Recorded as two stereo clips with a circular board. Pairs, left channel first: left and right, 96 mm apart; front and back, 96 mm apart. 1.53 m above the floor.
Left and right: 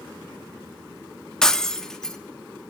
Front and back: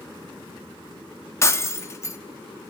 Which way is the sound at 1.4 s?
10° left.